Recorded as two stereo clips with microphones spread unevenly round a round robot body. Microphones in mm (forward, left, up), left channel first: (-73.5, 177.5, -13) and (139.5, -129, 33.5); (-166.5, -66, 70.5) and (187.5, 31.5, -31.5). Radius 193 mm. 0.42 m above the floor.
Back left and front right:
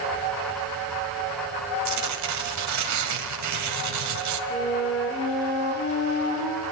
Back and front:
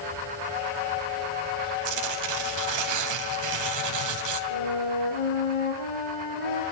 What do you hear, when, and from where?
1.9 s tearing paper: 10° right, 2.5 m
4.5 s a flute: 160° right, 6.5 m